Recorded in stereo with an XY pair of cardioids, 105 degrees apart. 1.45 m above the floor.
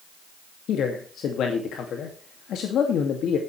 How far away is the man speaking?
About 2 m.